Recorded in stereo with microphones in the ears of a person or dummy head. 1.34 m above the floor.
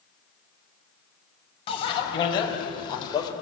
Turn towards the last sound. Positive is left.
turn(degrees=25)  # may be behind; listen again after turning